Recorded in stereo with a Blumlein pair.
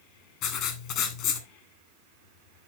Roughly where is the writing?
Ahead left.